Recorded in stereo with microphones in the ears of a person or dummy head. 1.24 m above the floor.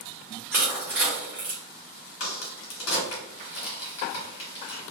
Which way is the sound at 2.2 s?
70° left (ahead or behind).